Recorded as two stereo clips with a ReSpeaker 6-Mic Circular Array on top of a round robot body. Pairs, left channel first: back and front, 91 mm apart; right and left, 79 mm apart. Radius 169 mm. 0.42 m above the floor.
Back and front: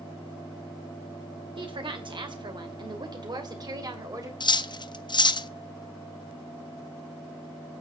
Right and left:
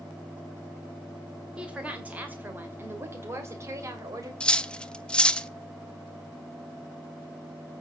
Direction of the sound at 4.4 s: 165° right.